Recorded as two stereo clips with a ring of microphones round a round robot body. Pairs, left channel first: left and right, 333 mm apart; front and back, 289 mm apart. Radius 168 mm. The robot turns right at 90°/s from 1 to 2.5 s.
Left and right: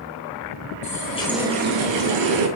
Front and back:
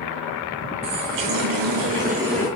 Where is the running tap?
150° left, 2 m; by 2.5 s 80° right, 2 m.